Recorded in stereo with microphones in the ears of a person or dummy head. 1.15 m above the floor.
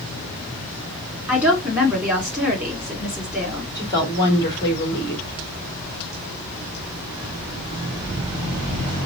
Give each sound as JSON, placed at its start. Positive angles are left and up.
{"t": 1.3, "sound": "a woman speaking", "side_deg": -5, "distance_m": 2.5}
{"t": 3.8, "sound": "a woman speaking", "side_deg": 15, "distance_m": 2.5}